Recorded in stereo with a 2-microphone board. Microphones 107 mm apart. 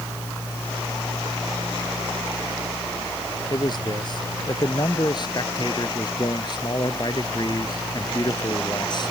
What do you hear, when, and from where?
3.5 s a man speaking: 45° left (ahead or behind)